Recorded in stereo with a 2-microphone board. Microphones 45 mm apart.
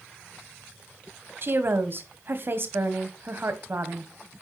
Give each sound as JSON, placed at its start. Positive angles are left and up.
{"t": 1.4, "sound": "a woman speaking", "side_deg": -50, "distance_m": 1.6}